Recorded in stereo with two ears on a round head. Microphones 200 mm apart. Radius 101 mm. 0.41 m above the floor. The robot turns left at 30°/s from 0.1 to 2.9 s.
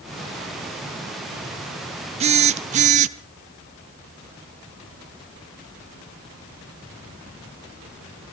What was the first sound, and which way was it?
A phone buzzing, 30° right (ahead or behind).